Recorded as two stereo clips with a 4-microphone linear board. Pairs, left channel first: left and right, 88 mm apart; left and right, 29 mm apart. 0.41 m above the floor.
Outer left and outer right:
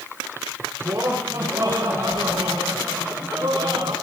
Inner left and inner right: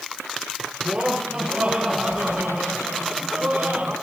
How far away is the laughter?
About 6 m.